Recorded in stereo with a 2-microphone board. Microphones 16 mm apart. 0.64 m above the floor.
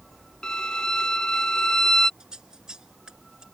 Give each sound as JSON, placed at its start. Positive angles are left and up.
{"t": 0.4, "sound": "a violin", "side_deg": 55}
{"t": 2.2, "sound": "scissors", "side_deg": -55}